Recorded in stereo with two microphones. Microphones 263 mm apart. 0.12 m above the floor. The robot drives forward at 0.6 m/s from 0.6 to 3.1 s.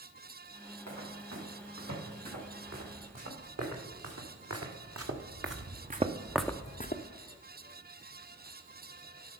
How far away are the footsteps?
About 5 m.